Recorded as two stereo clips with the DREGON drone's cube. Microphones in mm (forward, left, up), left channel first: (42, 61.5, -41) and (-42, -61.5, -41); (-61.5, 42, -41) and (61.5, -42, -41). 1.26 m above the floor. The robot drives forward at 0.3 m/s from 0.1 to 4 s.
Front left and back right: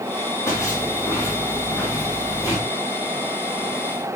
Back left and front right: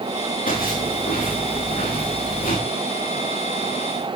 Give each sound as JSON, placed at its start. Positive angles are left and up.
{"t": 0.5, "sound": "footsteps", "azimuth_deg": 125, "distance_m": 10.0}